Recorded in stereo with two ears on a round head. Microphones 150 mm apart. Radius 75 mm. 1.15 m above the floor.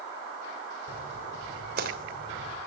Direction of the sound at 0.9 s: 60° right (ahead or behind).